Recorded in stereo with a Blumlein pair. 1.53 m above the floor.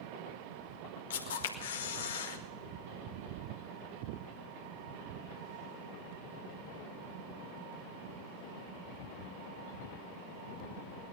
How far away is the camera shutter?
About 1.9 m.